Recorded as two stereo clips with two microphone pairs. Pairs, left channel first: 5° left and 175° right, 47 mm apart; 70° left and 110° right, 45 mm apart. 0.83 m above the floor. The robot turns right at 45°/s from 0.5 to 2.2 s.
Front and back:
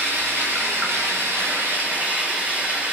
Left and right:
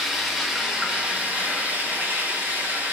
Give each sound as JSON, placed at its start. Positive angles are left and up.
{"t": 0.0, "sound": "running water", "azimuth_deg": 160, "distance_m": 1.0}